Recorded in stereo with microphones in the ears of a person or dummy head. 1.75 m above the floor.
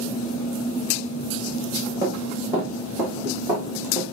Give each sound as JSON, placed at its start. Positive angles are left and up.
{"t": 2.0, "sound": "running footsteps", "side_deg": -20, "distance_m": 3.5}